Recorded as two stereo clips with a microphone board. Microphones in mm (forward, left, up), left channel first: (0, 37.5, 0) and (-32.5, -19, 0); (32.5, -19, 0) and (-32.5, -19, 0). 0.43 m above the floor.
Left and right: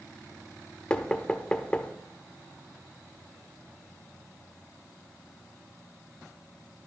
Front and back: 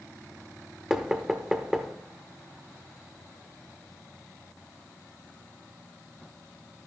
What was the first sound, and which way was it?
Knocking, 110° left.